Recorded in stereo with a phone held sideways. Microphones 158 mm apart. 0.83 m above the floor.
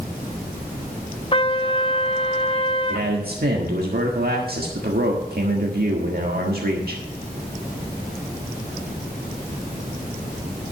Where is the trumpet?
35° left (ahead or behind), 0.7 m.